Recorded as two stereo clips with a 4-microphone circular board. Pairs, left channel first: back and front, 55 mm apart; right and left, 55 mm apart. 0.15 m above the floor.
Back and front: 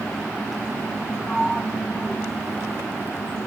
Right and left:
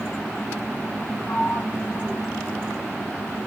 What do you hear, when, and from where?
1.3 s a sliding door: 85° right, 3 m